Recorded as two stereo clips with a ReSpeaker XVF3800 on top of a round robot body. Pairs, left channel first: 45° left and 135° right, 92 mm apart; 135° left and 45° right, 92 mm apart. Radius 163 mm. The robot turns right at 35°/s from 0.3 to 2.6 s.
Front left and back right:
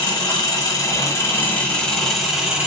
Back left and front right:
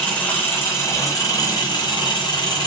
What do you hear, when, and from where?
0.0 s an engine running: 70° left, 1.3 m; by 2.7 s 150° left, 1.3 m